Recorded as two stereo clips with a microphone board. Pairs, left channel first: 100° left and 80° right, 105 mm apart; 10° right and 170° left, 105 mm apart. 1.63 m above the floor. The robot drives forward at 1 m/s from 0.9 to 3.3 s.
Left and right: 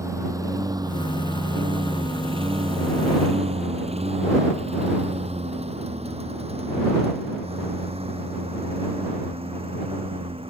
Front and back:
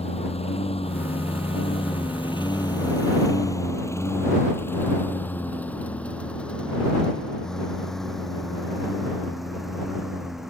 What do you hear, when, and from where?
0.0 s a lawn mower: 20° right; by 10.5 s 105° right